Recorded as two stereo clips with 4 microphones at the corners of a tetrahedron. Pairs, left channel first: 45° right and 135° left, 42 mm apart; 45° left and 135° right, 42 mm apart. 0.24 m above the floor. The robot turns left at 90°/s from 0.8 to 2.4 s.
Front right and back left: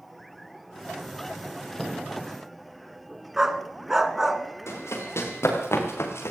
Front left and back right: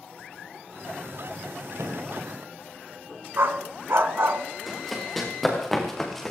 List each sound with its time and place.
1.8 s a thud: 130° right, 2.5 m; by 2.1 s 155° right, 2.5 m
3.4 s a dog barking: 145° right, 1.0 m
4.7 s running footsteps: 45° right, 6.5 m; by 6.3 s 40° right, 4 m